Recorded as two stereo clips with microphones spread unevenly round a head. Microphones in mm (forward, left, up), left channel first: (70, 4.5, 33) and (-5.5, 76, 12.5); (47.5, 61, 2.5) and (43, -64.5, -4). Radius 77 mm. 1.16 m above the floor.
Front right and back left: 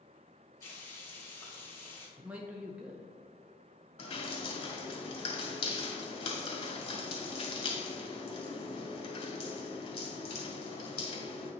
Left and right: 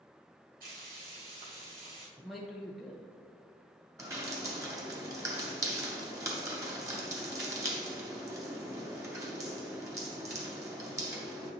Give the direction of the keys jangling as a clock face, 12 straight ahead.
I don't hear keys jangling.